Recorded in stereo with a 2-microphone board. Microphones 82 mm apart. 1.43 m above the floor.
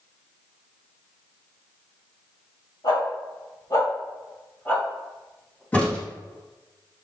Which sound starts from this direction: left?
A dog barking, at 2.8 s.